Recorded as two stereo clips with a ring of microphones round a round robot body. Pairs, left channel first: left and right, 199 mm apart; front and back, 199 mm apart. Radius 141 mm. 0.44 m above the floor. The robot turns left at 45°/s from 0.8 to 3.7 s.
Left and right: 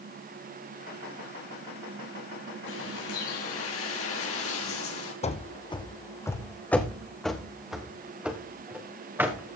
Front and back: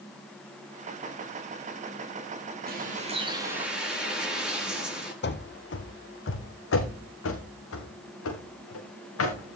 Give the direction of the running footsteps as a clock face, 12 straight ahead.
11 o'clock.